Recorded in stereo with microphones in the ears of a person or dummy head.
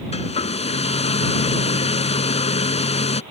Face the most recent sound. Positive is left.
turn(degrees=30)  # may be behind; listen again after turning